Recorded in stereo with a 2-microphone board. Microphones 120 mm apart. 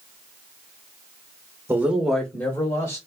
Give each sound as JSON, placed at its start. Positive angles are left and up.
{"t": 1.7, "sound": "a man speaking", "side_deg": -20, "distance_m": 0.8}